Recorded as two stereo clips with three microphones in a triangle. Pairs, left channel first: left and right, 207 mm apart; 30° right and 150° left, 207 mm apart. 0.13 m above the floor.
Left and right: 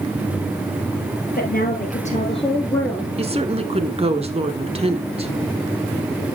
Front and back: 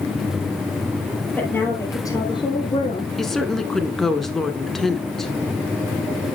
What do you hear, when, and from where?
1.4 s a woman speaking: 50° left, 2.5 m; by 3.1 s 5° right, 1.4 m
3.2 s a woman speaking: 115° right, 1.3 m